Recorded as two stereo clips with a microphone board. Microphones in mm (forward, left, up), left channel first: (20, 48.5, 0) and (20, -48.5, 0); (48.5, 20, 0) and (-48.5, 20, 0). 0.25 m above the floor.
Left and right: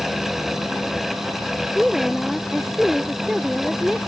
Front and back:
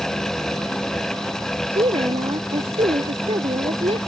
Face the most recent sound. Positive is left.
turn(degrees=-175)